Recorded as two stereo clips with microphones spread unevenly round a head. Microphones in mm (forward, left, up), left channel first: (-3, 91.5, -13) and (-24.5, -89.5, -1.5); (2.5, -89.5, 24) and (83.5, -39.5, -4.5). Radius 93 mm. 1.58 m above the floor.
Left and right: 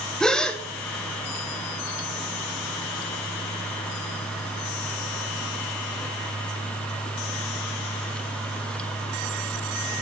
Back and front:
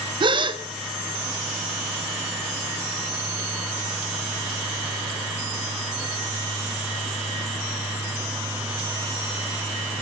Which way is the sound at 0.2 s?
5° right.